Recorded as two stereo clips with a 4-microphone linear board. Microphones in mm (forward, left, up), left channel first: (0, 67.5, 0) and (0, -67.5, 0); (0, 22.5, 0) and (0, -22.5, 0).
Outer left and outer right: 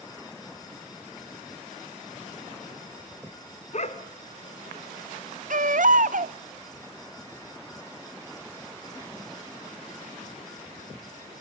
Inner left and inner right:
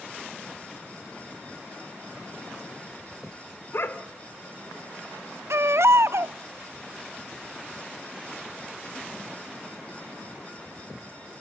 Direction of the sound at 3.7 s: 60° left (ahead or behind).